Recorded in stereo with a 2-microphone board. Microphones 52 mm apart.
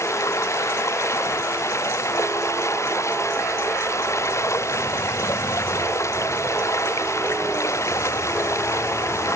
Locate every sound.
0.0 s running water: 75° left (ahead or behind)